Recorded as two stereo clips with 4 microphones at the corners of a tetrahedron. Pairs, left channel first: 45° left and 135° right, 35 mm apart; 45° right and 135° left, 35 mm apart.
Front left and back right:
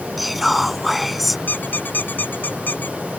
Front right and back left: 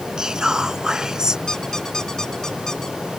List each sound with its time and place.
0.2 s whispering: 145° left
1.5 s a squeak: 30° left